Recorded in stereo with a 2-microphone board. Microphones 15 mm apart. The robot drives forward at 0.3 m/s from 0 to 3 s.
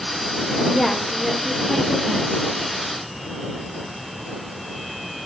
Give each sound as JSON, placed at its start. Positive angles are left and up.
{"t": 0.7, "sound": "a woman speaking", "side_deg": -5, "distance_m": 1.9}